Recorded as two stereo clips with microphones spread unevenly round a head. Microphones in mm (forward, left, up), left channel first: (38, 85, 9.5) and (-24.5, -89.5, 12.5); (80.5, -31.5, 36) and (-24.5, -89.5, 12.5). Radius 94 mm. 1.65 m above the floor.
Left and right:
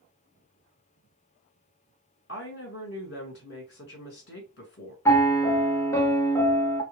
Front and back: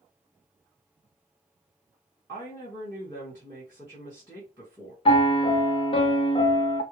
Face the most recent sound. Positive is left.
turn(degrees=-5)